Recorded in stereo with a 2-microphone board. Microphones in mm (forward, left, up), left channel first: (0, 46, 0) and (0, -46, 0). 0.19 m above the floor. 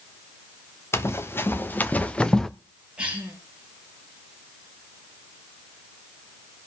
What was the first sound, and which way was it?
Running footsteps, 30° left (ahead or behind).